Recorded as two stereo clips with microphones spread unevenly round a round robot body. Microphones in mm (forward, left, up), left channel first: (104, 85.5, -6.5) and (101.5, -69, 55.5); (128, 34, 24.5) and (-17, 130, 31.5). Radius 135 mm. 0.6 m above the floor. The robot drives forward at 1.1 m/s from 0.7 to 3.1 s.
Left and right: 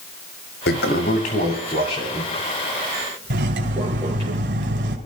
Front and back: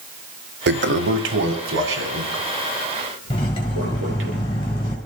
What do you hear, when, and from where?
0.7 s a toilet flushing: 130° left, 0.9 m; by 4.3 s 170° left, 3.5 m
3.3 s cutlery clinking: 105° right, 3 m